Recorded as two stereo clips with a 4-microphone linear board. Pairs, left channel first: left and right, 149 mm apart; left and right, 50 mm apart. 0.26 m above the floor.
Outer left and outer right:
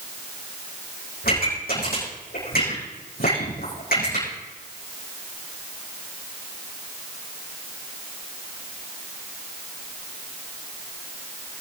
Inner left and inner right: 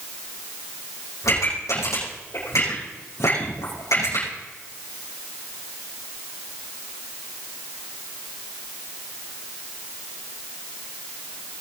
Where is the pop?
85° left, 9 m.